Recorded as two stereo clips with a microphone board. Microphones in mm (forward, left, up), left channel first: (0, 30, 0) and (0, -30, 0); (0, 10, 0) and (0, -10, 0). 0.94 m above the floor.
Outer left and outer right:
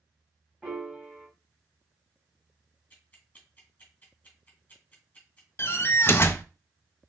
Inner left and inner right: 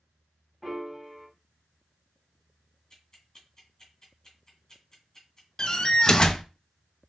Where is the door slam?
40° left (ahead or behind), 0.5 m.